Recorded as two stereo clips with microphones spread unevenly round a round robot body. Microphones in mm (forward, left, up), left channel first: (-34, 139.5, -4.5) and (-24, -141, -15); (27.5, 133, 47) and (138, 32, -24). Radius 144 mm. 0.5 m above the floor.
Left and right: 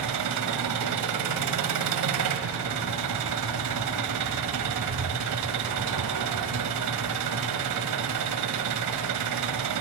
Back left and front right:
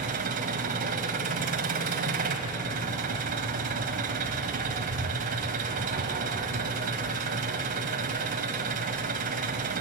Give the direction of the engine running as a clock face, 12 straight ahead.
2 o'clock.